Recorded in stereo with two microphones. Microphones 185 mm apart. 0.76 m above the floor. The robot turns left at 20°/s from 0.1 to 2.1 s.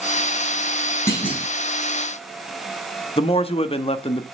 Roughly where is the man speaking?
Left.